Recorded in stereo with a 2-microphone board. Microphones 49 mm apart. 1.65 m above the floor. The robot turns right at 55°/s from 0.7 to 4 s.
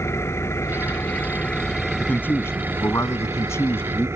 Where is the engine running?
110° left; by 4.2 s 65° right.